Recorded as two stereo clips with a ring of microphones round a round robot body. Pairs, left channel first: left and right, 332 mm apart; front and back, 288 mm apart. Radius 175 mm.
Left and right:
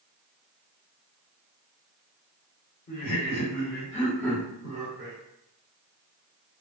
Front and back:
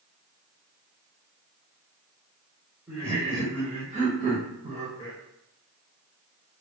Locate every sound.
2.9 s laughter: 100° left, 1.9 m; by 5.2 s 120° right, 1.5 m